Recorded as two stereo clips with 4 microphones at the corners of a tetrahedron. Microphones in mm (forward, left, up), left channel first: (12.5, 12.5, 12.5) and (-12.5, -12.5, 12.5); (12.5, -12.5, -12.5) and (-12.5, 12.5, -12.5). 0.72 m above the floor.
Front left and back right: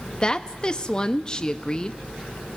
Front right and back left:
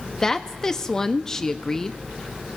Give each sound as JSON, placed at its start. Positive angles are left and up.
{"t": 0.2, "sound": "a woman speaking", "azimuth_deg": 10, "distance_m": 0.5}